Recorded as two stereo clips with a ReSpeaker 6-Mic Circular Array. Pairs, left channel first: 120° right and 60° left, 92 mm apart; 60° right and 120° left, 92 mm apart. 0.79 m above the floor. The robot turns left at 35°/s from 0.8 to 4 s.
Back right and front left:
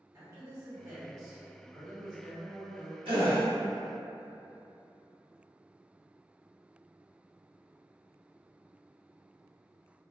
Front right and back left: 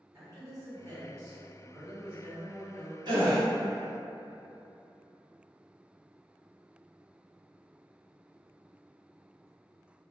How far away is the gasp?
About 1.1 m.